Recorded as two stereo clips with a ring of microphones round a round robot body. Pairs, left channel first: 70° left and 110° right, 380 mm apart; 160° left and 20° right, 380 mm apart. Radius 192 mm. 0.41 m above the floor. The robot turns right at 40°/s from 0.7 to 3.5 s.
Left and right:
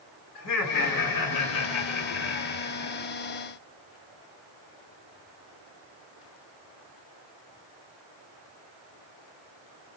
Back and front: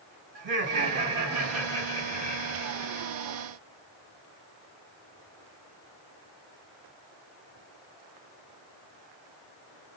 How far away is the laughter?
About 2.5 m.